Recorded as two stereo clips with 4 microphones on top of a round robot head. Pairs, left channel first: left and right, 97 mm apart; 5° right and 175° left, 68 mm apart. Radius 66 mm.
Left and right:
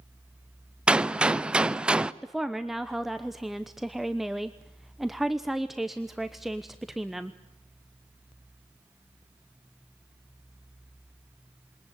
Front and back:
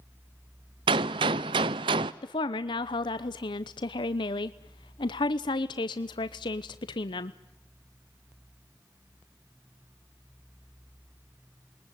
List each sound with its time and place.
0.9 s a gunshot: 170° right, 0.7 m
2.2 s a woman speaking: straight ahead, 0.9 m